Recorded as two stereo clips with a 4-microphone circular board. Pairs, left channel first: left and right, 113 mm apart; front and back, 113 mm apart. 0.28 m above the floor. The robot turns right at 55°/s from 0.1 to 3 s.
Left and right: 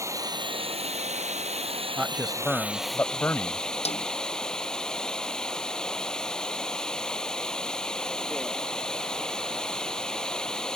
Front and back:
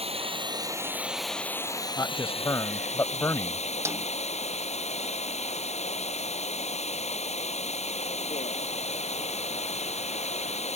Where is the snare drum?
115° left.